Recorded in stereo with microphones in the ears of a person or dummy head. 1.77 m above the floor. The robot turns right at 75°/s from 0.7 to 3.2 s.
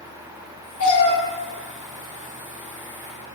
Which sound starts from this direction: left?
A cat meowing, at 0.8 s.